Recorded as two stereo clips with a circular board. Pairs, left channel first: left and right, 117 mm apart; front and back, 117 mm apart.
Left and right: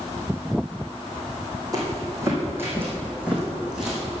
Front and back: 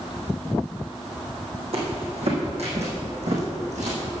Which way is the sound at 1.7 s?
150° right.